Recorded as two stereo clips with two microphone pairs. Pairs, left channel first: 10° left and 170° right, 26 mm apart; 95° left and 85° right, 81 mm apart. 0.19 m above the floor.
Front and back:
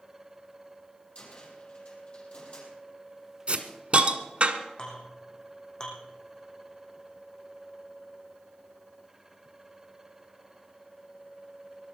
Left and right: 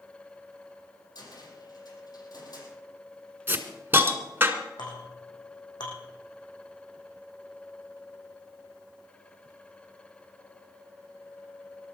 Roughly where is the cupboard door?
Ahead left.